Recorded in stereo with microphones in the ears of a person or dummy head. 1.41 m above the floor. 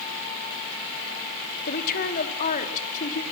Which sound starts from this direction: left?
A woman speaking, at 1.7 s.